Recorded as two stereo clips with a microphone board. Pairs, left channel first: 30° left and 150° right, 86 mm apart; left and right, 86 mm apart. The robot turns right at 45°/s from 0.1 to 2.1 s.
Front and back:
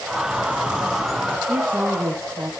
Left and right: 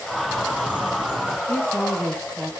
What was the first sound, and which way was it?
A bird, 100° right.